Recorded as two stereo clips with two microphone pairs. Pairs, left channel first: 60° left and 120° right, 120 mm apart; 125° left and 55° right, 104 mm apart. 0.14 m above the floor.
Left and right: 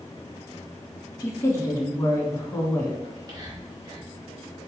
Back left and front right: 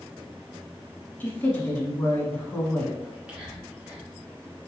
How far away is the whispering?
About 2.0 m.